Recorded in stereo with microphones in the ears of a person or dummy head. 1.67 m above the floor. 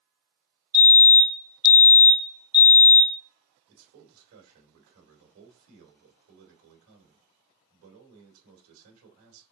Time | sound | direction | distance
0.7 | a fire alarm | 20° left (ahead or behind) | 3 m
3.7 | a man speaking | 80° right | 2 m